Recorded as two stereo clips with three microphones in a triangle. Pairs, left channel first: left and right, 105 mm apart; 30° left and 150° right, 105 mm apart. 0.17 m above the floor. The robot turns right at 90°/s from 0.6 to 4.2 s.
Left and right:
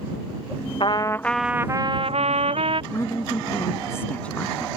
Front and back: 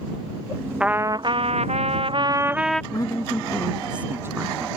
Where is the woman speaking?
45° left; by 4.7 s 160° left.